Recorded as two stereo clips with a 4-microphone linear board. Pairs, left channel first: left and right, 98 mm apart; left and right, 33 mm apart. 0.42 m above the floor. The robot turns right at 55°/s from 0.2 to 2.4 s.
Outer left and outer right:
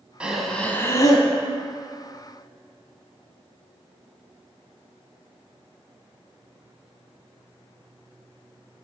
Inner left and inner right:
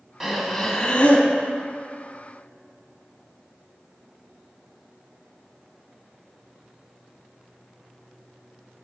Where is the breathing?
10° right, 0.9 m; by 1.3 s 50° left, 0.9 m.